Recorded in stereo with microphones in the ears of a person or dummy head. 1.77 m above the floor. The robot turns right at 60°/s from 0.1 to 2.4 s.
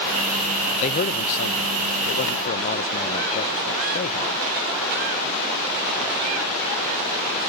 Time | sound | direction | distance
0.8 | a man speaking | 45° left | ?